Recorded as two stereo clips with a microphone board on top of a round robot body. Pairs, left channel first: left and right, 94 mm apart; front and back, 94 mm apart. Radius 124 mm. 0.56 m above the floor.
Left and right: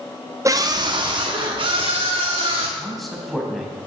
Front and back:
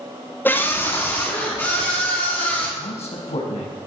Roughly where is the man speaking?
Ahead.